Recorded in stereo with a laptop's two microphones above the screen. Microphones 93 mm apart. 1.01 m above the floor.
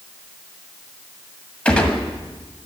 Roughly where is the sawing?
No sawing in this recording.